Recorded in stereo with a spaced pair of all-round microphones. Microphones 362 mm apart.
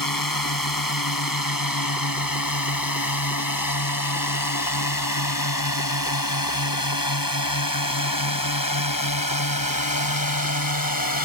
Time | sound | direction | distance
0.0 | a drone | 65° left (ahead or behind) | ?